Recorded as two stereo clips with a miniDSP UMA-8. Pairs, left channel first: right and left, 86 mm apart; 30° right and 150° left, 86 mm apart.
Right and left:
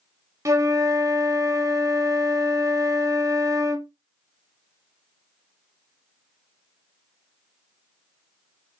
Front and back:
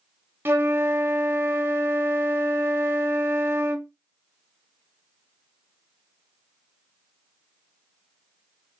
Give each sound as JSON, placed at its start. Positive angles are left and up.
{"t": 0.5, "sound": "a flute", "azimuth_deg": 105, "distance_m": 0.7}